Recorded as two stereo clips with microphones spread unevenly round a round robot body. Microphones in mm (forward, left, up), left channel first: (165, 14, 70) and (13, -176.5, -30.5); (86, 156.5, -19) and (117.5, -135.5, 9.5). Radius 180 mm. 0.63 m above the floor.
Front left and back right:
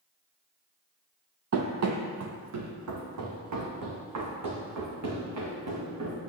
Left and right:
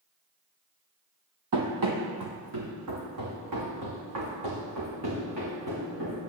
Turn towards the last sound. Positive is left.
turn(degrees=-130)